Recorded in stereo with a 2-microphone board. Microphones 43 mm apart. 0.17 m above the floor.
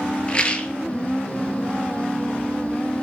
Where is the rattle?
25° left (ahead or behind), 0.7 m.